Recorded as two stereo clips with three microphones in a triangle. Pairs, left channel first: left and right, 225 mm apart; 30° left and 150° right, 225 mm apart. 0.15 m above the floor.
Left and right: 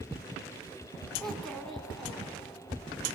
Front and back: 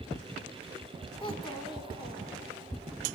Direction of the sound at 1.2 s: 5° left.